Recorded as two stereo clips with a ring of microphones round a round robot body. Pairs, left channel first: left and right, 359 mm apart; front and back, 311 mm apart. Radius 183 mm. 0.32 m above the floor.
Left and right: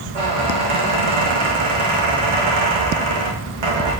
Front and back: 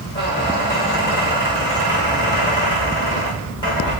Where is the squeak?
80° right, 3.5 m.